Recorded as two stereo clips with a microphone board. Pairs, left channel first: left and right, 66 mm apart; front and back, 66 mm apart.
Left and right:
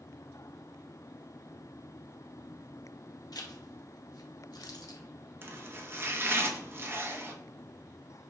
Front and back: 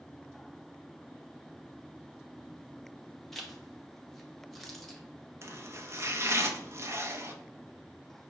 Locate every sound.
3.3 s a zipper: 90° left, 0.8 m
5.4 s chopping: 135° right, 0.7 m